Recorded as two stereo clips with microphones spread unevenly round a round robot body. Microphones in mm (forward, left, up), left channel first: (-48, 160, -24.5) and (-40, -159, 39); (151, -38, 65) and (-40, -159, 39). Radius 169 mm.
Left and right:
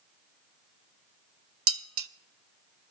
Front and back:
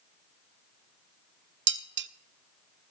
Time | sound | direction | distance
1.7 | dishes clattering | 140° right | 0.5 m